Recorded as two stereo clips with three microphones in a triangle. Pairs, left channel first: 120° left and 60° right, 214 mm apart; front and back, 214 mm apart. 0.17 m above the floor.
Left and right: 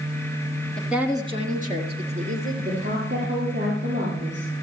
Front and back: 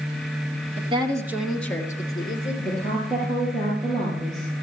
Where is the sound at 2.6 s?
90° right, 4 m.